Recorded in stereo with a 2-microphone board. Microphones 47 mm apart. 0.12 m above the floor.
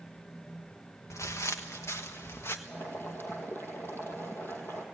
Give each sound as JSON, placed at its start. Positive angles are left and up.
{"t": 1.1, "sound": "footsteps", "side_deg": 85, "distance_m": 1.3}
{"t": 2.7, "sound": "boiling", "side_deg": 50, "distance_m": 2.5}